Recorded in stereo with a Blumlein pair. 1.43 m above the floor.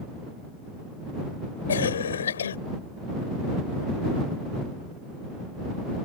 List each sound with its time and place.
1.7 s a cough: 65° left